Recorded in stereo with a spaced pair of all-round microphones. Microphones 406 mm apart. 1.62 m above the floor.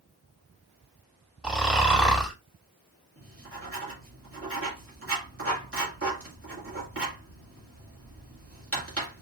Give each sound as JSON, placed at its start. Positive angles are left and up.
{"t": 1.4, "sound": "snoring", "side_deg": 0, "distance_m": 2.0}
{"t": 3.2, "sound": "writing", "side_deg": -30, "distance_m": 2.0}